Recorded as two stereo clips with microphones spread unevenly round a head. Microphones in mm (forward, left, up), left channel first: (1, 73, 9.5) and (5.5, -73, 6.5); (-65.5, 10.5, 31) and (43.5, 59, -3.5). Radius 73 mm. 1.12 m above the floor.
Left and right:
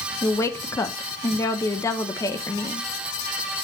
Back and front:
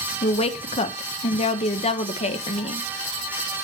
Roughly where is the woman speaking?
Behind.